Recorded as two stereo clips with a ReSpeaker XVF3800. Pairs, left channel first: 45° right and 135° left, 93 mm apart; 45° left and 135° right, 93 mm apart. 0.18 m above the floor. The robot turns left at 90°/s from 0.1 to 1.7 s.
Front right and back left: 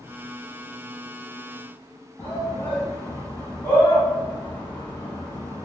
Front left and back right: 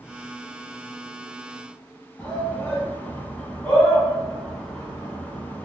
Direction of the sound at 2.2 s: 20° right.